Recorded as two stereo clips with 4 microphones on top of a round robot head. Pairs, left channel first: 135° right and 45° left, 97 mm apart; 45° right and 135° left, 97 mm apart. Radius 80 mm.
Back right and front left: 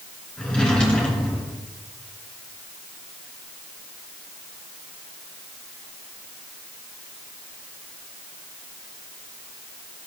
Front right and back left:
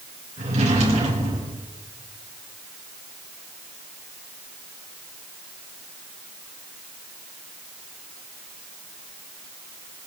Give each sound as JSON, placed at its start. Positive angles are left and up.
{"t": 0.4, "sound": "a drawer", "azimuth_deg": 145, "distance_m": 3.5}